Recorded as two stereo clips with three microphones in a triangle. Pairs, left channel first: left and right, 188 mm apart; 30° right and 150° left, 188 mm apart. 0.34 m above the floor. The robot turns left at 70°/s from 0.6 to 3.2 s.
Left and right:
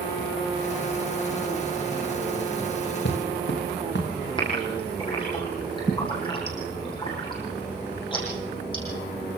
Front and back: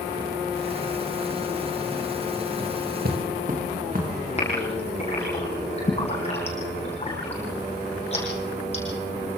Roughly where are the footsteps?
Behind left.